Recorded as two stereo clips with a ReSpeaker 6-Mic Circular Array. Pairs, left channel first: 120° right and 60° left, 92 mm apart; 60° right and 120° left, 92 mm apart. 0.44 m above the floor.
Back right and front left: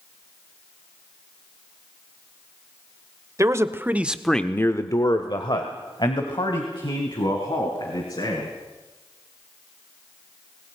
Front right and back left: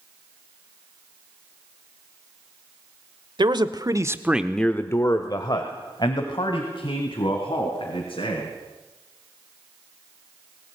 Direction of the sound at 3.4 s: 110° left.